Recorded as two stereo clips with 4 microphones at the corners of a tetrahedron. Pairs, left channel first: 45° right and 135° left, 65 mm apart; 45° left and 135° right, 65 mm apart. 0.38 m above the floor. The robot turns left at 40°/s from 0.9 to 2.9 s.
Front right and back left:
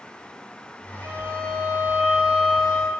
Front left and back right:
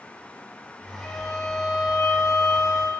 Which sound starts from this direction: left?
A violin, at 1.0 s.